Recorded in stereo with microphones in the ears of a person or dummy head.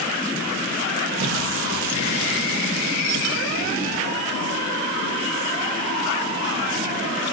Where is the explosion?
65° right (ahead or behind), 1.4 m.